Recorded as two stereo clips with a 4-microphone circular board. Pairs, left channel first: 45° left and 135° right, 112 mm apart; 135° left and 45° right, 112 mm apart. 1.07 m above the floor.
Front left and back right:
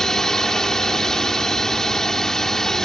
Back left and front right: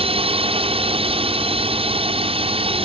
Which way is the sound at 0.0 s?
40° right.